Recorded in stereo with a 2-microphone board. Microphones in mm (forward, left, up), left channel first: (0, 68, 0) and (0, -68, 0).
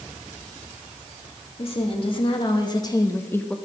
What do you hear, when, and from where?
1.6 s a woman speaking: 45° left (ahead or behind), 1.7 m; by 3.6 s 5° left (ahead or behind), 0.8 m